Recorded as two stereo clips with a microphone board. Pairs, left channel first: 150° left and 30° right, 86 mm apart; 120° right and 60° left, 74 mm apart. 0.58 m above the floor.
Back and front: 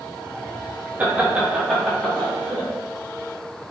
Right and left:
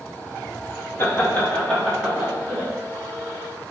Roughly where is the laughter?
Right.